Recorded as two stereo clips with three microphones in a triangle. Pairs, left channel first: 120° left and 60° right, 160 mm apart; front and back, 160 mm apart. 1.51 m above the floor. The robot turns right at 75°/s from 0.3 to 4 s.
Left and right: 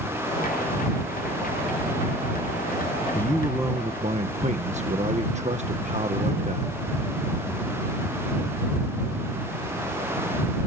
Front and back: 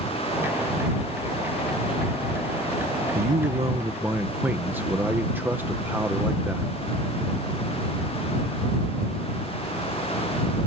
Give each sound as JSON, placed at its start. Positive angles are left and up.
{"t": 3.1, "sound": "a man speaking", "azimuth_deg": -165}